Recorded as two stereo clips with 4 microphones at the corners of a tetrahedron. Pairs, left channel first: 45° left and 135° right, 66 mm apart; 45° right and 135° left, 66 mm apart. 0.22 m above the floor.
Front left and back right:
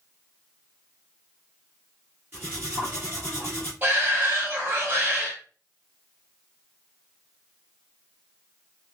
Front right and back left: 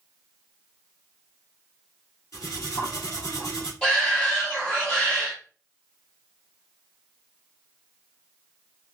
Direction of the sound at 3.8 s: 110° right.